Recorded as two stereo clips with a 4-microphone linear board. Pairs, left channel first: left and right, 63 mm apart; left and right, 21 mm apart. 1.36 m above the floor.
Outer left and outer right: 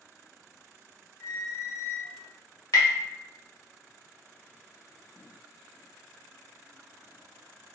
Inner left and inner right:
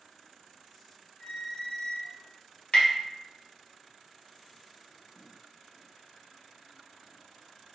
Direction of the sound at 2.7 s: 70° left (ahead or behind).